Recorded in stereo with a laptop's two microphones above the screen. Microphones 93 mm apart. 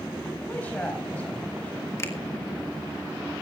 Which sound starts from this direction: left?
A finger snap, at 2.0 s.